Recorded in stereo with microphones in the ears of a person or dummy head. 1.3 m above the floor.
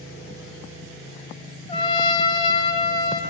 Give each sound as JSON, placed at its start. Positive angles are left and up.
{"t": 1.7, "sound": "a trumpet", "side_deg": 30, "distance_m": 3.0}